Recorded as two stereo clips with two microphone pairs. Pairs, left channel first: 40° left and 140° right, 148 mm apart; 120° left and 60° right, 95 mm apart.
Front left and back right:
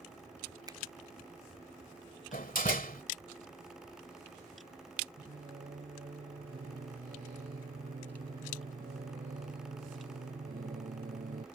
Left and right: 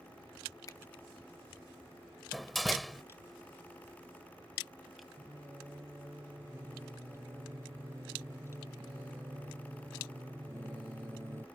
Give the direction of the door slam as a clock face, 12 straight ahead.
11 o'clock.